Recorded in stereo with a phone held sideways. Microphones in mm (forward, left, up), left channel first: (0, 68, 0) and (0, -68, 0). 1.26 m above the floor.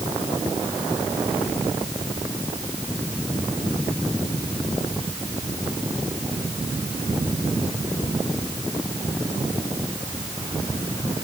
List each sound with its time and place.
Only background noise.